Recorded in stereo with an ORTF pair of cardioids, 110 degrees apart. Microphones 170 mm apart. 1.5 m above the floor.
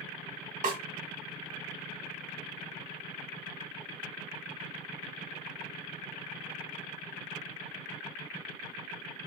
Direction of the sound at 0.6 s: 45° right.